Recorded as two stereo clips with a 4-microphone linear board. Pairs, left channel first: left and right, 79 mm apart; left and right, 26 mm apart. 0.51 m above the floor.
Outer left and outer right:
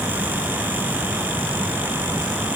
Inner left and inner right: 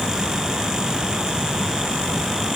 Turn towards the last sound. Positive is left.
No sound to turn to.